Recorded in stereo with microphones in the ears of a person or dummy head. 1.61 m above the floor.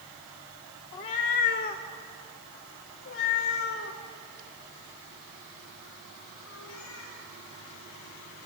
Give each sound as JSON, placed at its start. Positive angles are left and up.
{"t": 0.9, "sound": "a cat meowing", "side_deg": 25, "distance_m": 0.8}